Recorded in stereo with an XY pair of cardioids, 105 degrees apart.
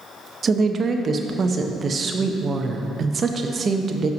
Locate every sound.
0.4 s a woman speaking: 40° right, 0.7 m